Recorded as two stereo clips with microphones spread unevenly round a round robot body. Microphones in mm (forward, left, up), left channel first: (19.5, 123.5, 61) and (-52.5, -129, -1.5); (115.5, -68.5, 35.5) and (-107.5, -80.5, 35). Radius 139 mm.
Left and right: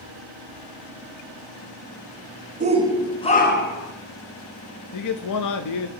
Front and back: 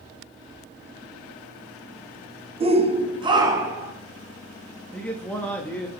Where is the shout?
125° right, 1.1 m; by 3.9 s 100° left, 1.4 m.